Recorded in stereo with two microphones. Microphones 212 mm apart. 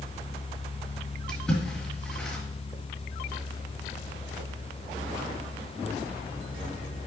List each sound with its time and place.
1.3 s a splash: 5° left (ahead or behind), 2.5 m